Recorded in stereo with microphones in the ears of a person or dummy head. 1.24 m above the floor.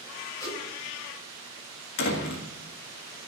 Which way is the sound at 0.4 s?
20° left (ahead or behind).